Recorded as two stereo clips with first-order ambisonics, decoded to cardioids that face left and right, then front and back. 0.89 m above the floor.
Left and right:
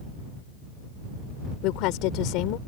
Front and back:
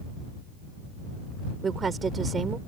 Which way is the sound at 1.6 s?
110° left.